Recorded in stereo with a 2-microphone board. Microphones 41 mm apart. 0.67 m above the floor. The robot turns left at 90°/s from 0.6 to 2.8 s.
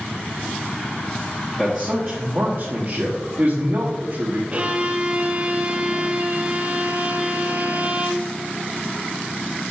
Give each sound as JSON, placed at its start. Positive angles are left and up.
{"t": 1.6, "sound": "a man speaking", "azimuth_deg": -20, "distance_m": 1.1}
{"t": 4.5, "sound": "a violin", "side_deg": -35, "distance_m": 0.6}